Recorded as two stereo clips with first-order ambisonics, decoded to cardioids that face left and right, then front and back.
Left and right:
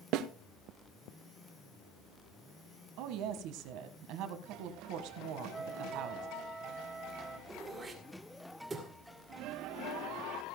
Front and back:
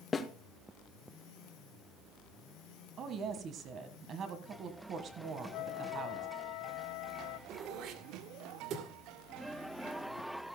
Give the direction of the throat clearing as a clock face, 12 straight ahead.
5 o'clock.